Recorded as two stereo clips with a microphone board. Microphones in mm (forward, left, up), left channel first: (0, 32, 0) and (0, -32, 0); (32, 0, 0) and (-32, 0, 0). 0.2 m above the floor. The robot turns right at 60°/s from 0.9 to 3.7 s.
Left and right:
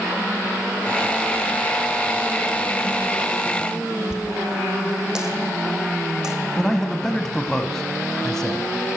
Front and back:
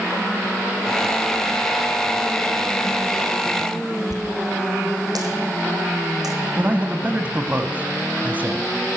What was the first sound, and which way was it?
A dropped coin, 170° right.